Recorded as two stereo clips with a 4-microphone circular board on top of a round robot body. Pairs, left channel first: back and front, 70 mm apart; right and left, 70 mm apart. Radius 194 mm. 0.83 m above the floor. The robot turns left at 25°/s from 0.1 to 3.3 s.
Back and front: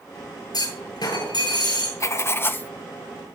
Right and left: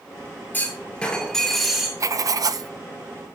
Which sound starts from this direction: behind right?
A clunk, at 0.5 s.